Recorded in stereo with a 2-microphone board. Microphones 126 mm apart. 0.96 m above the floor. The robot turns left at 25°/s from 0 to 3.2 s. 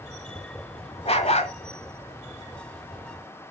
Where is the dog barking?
55° left (ahead or behind), 1.3 m; by 1.6 s 60° left (ahead or behind), 1.3 m.